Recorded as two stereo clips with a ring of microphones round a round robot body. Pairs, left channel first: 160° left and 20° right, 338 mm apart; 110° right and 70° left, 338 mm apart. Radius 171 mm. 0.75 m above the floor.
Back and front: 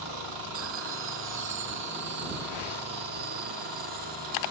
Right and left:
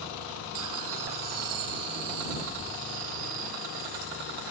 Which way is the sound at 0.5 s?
30° left.